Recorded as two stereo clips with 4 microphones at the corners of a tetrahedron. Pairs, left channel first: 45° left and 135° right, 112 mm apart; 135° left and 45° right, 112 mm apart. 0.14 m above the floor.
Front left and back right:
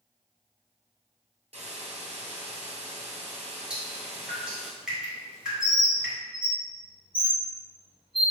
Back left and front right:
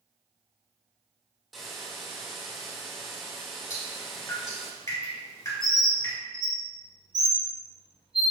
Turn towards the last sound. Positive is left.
turn(degrees=180)